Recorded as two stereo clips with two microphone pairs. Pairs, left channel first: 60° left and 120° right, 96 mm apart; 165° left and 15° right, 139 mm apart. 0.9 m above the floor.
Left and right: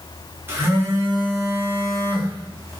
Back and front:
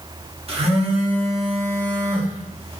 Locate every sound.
0.5 s a phone buzzing: 60° right, 0.7 m